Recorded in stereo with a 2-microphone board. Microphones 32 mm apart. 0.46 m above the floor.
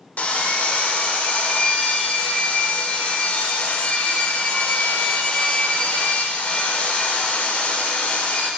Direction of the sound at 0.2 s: 50° left (ahead or behind).